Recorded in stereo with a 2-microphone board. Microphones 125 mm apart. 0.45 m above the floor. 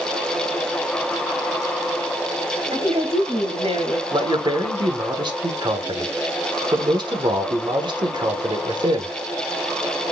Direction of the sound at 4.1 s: 40° right (ahead or behind).